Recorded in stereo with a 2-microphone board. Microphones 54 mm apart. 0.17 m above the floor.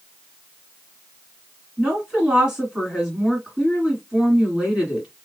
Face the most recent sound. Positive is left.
turn(degrees=-15)  # may be behind; listen again after turning